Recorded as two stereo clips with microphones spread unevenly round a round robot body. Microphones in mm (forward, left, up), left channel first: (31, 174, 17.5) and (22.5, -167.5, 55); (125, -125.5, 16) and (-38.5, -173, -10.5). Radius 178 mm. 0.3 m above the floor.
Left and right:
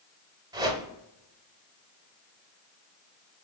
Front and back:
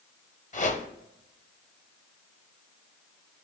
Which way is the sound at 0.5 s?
10° right.